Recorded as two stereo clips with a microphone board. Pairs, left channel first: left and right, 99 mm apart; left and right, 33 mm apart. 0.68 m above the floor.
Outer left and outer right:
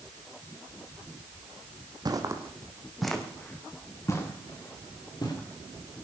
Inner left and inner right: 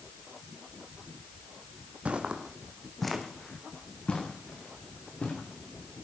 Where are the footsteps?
45° right (ahead or behind), 1.9 m; by 5.3 s 45° left (ahead or behind), 4.5 m.